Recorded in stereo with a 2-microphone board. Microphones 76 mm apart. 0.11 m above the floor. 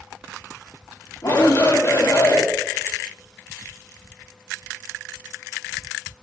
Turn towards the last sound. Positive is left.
turn(degrees=55)  # may be behind; listen again after turning